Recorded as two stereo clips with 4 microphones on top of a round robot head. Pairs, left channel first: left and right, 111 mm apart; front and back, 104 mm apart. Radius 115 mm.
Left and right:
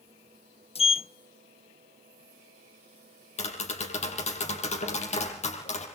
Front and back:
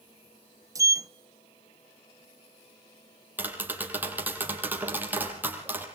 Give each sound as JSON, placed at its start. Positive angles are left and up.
{"t": 0.8, "sound": "a sliding door", "azimuth_deg": 120, "distance_m": 0.5}
{"t": 3.4, "sound": "tapping", "azimuth_deg": 105, "distance_m": 6.5}